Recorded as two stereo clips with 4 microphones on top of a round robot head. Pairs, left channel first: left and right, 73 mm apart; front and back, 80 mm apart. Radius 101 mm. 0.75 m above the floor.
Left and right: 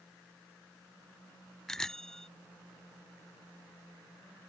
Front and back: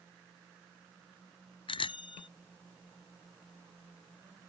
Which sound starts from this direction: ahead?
A bicycle bell, at 1.7 s.